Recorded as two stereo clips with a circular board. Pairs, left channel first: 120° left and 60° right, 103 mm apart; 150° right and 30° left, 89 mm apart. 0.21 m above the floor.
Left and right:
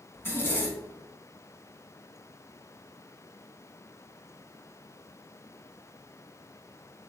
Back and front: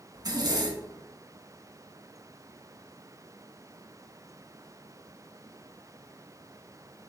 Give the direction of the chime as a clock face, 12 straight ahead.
No chime in this recording.